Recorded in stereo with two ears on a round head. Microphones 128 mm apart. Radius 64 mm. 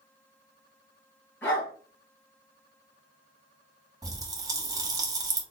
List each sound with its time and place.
1.4 s a dog barking: 15° left (ahead or behind), 2.5 m
4.0 s a pop: 25° right (ahead or behind), 1.1 m